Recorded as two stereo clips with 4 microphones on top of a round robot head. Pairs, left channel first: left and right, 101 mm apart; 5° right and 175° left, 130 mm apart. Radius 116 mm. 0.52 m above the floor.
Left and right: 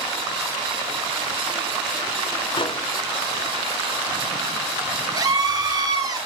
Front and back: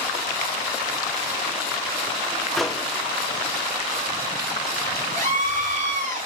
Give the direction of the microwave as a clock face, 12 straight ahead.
9 o'clock.